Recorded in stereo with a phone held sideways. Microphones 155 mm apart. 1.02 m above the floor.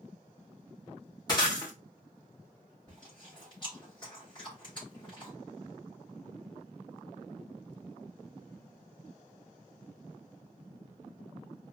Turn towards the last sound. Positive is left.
turn(degrees=30)  # may be behind; listen again after turning